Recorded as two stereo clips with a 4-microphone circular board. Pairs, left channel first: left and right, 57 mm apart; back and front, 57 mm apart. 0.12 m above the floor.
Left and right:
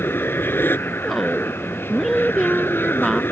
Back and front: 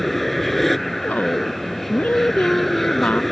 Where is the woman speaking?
Straight behind.